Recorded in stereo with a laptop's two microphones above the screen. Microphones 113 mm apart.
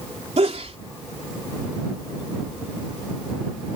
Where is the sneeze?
65° right (ahead or behind).